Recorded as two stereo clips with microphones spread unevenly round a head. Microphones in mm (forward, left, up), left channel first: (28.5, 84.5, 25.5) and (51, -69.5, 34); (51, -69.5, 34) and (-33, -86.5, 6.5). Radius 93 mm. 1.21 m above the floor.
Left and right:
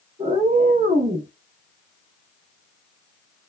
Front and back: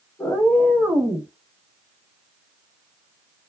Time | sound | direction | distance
0.2 | a cat meowing | 40° right | 0.9 m